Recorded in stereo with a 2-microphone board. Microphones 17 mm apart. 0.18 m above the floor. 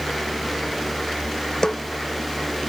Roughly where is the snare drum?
Left.